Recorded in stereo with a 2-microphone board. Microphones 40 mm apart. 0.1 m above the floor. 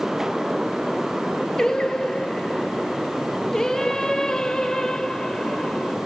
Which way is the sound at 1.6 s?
10° left (ahead or behind).